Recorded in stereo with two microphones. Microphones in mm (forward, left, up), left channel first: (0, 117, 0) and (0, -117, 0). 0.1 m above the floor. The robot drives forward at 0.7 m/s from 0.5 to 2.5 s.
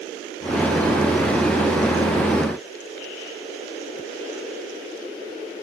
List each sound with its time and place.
Only background noise.